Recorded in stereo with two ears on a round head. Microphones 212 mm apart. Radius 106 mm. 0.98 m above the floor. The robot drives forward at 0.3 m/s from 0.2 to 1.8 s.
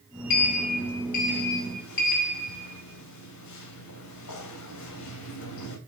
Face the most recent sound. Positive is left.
turn(degrees=85)